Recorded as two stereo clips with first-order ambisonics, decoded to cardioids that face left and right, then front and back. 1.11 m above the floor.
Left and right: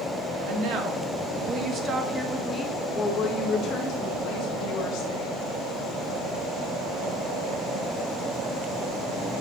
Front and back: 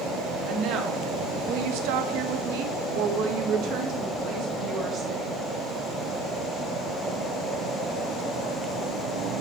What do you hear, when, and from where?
0.5 s a woman speaking: 130° right, 1.4 m; by 5.5 s 125° left, 1.8 m